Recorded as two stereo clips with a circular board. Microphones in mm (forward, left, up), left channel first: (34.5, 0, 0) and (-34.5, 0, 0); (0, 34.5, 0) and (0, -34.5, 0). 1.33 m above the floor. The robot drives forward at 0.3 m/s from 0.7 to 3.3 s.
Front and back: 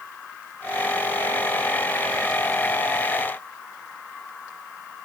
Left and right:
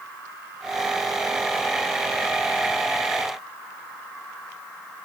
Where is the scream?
I don't hear a scream.